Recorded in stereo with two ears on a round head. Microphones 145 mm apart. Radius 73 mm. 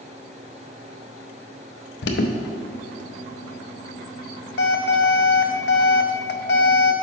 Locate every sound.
2.0 s an alarm: 70° left (ahead or behind), 0.6 m